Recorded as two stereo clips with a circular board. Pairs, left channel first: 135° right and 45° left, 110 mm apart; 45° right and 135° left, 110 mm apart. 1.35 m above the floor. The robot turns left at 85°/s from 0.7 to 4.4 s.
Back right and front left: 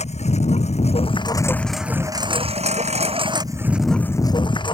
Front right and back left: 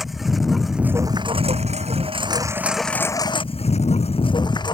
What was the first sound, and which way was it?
A lawn mower, 135° right.